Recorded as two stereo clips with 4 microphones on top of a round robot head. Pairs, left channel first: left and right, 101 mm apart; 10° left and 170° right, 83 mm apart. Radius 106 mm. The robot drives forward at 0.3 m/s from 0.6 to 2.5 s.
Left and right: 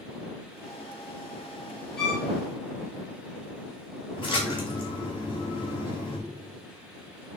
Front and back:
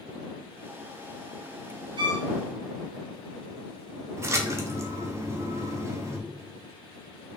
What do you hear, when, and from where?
2.0 s a violin: 175° left, 0.8 m
4.2 s a splash: 135° left, 0.7 m